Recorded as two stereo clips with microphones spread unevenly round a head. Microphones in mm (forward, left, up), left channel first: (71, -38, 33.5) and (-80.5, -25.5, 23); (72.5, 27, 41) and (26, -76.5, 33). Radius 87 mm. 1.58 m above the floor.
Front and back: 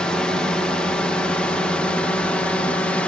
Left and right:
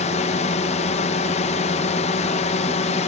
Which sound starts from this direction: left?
A drone, at 0.0 s.